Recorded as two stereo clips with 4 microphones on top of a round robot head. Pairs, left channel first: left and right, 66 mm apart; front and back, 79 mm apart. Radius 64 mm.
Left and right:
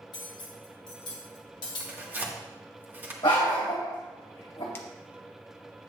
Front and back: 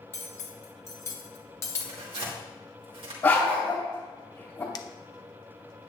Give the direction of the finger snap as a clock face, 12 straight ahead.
11 o'clock.